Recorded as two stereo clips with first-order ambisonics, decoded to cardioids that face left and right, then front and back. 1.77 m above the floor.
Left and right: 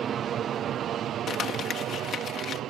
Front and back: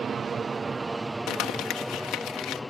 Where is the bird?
I don't hear a bird.